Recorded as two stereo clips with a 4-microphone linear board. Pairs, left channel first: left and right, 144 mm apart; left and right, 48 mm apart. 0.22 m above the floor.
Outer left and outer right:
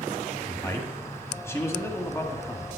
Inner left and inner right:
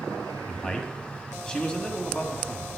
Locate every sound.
0.5 s a man speaking: 20° left (ahead or behind), 1.5 m